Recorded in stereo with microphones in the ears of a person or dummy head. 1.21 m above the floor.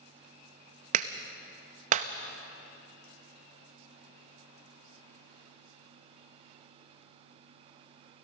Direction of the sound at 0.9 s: 45° right (ahead or behind).